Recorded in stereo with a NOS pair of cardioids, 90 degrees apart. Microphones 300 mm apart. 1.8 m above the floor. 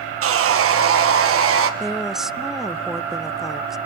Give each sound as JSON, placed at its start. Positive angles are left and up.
{"t": 0.2, "sound": "sawing", "azimuth_deg": -50, "distance_m": 1.6}
{"t": 1.8, "sound": "a woman speaking", "azimuth_deg": 0, "distance_m": 0.5}